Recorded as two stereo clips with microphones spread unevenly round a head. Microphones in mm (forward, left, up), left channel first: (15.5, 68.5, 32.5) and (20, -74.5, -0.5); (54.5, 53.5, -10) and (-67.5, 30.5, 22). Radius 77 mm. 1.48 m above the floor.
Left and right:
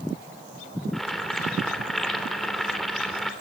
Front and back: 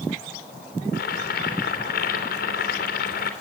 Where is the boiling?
5° left, 3 m.